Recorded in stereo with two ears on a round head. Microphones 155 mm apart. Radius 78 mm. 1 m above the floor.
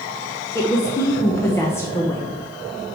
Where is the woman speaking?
15° left (ahead or behind), 0.9 m.